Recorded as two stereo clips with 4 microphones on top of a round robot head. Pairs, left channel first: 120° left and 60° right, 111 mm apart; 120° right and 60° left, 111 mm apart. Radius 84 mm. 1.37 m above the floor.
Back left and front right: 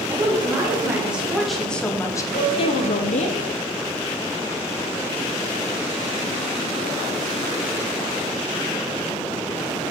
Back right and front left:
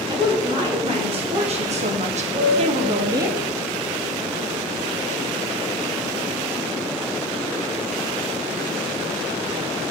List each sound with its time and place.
0.1 s a woman speaking: 10° left, 2.5 m; by 3.3 s 125° left, 1.1 m
2.3 s a piano: 95° left, 3.5 m